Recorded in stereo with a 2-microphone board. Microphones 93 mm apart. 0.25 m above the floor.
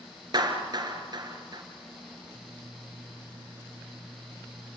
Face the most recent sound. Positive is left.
turn(degrees=-50)  # may be behind; listen again after turning